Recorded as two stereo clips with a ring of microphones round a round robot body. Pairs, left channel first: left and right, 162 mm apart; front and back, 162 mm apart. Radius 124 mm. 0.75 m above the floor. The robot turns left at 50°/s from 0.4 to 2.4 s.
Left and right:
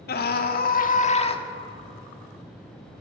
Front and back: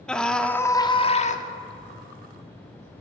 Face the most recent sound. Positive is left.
turn(degrees=-15)